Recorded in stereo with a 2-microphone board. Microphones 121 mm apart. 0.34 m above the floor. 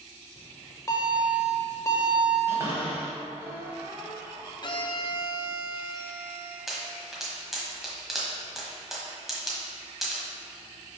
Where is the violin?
40° left (ahead or behind), 0.5 m.